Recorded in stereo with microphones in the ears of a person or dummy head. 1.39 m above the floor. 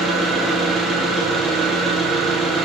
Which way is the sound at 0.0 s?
5° right (ahead or behind).